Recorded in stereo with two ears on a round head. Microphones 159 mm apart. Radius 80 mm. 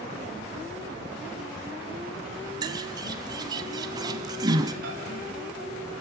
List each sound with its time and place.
2.6 s a bird: 25° right (ahead or behind), 1.2 m
4.8 s a microwave: 55° right (ahead or behind), 6 m